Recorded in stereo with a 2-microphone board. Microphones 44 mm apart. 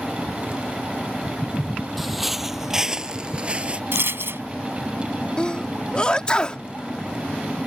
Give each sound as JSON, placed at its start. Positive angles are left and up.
{"t": 2.0, "sound": "footsteps", "side_deg": 0}
{"t": 3.9, "sound": "a rattle", "side_deg": -65}
{"t": 5.4, "sound": "a sneeze", "side_deg": 20}